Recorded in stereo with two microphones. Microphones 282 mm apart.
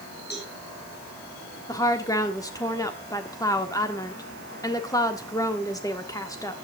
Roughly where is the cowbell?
Left.